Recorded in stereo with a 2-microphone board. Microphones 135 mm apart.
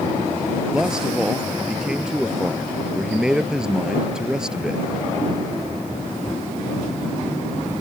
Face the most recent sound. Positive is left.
turn(degrees=-5)  # may be behind; listen again after turning